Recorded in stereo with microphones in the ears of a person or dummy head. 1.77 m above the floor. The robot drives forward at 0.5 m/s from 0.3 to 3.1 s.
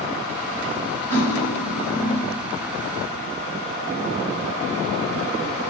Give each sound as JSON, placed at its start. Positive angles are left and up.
{"t": 1.1, "sound": "cutlery clinking", "side_deg": 15, "distance_m": 6.0}